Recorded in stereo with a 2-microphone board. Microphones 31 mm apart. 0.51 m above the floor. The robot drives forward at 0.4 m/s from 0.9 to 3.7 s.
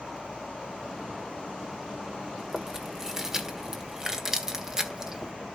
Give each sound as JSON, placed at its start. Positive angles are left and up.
{"t": 2.4, "sound": "chewing", "side_deg": -10, "distance_m": 1.6}